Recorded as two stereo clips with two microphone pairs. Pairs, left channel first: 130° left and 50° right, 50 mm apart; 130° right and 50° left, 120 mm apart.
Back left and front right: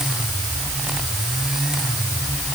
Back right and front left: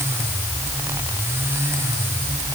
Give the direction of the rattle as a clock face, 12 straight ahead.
I don't hear a rattle.